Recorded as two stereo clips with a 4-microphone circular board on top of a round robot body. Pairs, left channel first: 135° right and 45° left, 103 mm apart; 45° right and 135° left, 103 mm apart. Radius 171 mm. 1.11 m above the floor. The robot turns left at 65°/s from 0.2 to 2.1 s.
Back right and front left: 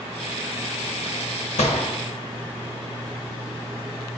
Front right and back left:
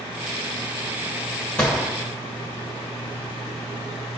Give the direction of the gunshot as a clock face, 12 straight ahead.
4 o'clock.